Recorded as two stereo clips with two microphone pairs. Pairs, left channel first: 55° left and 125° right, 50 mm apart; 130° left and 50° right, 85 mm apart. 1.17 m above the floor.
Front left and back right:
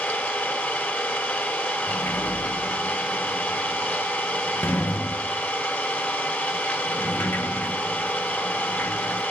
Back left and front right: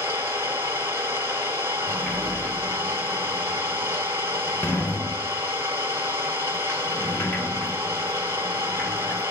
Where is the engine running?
5° left, 1.4 m.